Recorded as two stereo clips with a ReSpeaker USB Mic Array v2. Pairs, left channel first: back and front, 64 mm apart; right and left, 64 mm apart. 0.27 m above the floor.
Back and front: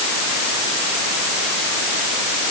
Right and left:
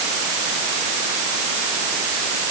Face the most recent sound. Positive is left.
No sound to turn to.